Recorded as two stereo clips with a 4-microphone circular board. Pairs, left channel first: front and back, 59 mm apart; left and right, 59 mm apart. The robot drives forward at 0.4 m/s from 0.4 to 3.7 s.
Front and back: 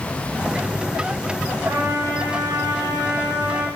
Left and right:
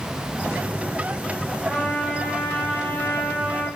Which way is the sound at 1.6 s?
Straight behind.